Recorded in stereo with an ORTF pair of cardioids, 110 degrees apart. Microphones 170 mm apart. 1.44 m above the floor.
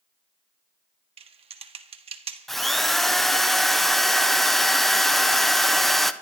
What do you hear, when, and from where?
1.2 s typing on a keyboard: 35° right, 1.3 m
2.5 s a drill: straight ahead, 0.7 m